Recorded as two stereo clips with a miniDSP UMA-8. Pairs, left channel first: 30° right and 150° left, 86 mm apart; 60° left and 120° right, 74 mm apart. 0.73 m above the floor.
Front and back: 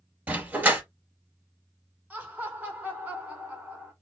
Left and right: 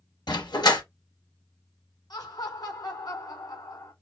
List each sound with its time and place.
0.3 s a dog barking: 80° left, 3 m
2.1 s laughter: 80° left, 3.5 m